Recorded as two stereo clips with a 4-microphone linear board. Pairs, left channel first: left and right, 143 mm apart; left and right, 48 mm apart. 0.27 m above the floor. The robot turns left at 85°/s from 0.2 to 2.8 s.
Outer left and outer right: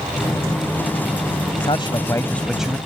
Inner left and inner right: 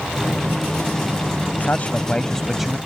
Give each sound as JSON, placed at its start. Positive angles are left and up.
{"t": 1.6, "sound": "a man speaking", "azimuth_deg": 80}